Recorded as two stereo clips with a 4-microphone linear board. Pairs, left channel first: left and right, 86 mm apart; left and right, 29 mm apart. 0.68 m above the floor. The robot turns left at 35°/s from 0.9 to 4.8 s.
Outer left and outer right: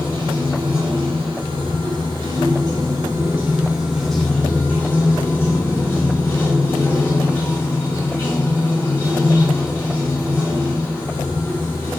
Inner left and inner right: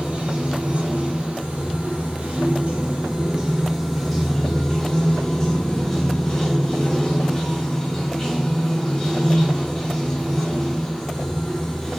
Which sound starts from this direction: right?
Running water, at 0.0 s.